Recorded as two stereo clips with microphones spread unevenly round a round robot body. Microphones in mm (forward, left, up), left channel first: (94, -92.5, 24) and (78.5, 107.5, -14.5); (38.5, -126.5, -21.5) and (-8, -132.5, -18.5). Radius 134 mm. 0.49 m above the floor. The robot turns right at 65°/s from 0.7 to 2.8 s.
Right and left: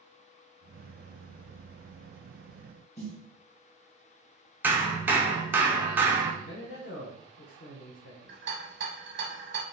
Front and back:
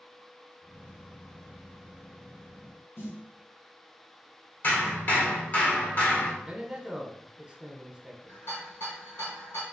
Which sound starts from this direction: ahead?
A snare drum, at 3.0 s.